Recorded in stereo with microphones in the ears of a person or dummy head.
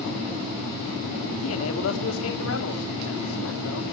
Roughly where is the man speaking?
Left.